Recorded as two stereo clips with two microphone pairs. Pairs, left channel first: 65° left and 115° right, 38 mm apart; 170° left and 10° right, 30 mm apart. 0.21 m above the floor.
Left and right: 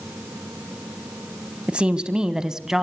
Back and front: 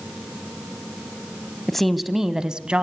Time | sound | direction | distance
1.7 | a woman speaking | 120° right | 1.2 m